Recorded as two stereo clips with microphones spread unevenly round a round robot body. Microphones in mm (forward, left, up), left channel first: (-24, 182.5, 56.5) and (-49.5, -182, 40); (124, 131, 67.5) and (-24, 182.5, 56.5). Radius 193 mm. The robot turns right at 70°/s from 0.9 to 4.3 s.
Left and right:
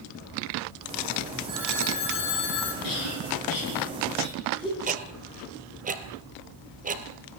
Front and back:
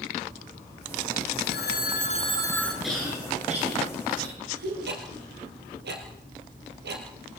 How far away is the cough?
About 9.5 m.